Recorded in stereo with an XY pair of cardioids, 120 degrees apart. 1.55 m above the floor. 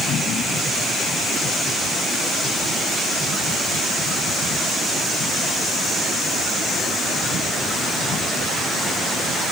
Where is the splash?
I don't hear a splash.